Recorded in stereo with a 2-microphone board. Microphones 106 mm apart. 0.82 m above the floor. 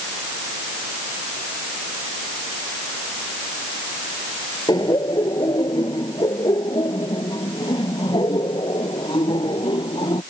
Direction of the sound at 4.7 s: 40° left (ahead or behind).